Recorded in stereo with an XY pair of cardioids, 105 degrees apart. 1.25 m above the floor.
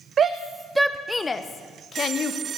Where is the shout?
50° right, 0.6 m; by 2.4 s 55° left, 1.2 m.